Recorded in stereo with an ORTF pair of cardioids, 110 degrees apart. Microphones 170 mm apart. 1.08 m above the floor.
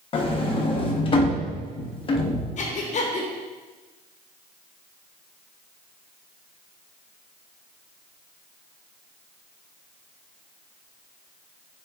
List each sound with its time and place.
0.1 s a sliding door: 35° left, 0.7 m
2.6 s breathing: 45° left, 0.9 m